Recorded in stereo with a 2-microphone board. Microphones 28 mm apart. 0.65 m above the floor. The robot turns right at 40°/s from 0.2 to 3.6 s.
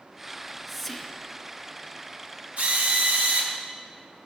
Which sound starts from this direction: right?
A drill, at 2.6 s.